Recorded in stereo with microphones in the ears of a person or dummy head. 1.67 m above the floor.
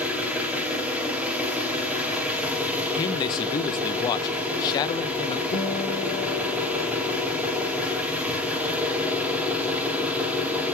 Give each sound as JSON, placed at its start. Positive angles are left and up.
{"t": 0.0, "sound": "an engine running", "side_deg": -5, "distance_m": 2.5}
{"t": 3.0, "sound": "a man speaking", "side_deg": 20, "distance_m": 0.6}
{"t": 5.5, "sound": "a guitar", "side_deg": 65, "distance_m": 2.5}